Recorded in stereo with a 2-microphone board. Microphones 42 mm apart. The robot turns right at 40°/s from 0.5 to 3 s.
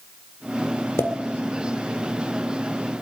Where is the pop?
80° left, 1.8 m; by 1.1 s 85° left, 1.8 m.